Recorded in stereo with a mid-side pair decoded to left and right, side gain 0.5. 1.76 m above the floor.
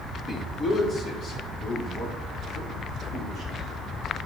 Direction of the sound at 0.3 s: 35° left.